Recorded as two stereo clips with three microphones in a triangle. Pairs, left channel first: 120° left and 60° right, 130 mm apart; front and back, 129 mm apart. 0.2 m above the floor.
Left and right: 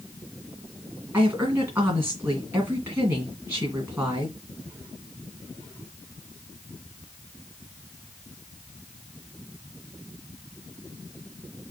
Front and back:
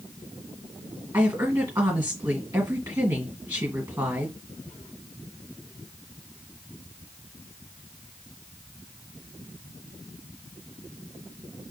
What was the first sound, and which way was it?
A woman speaking, 115° right.